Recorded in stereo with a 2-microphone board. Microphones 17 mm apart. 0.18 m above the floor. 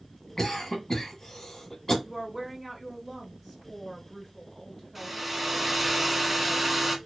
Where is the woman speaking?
20° right (ahead or behind), 1.7 m.